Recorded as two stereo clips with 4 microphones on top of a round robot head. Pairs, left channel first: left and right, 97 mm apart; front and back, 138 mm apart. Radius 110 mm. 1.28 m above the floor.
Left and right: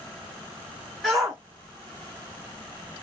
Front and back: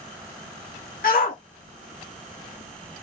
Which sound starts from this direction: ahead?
A shout, at 1.0 s.